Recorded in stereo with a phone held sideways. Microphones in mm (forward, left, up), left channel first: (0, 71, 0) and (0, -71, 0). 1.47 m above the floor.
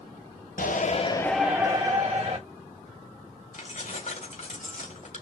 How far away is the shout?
About 1.0 m.